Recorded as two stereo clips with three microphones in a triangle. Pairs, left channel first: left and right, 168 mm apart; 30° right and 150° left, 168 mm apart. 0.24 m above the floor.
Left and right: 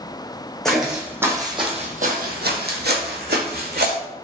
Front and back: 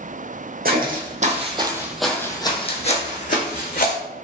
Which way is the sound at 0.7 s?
175° left.